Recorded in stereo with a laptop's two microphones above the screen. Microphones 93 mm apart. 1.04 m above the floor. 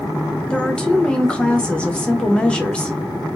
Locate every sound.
0.5 s a woman speaking: 10° left (ahead or behind), 0.6 m